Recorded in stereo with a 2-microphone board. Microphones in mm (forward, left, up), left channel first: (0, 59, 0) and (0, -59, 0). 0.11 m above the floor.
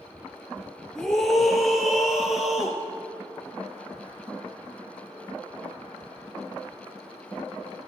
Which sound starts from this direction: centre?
A scream, at 0.9 s.